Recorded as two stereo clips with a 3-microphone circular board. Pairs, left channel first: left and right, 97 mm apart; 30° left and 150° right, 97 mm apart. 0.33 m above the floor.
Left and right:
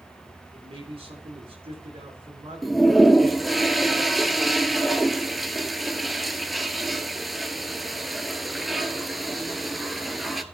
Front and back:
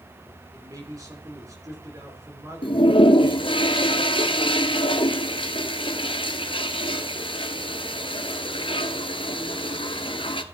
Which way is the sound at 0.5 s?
95° right.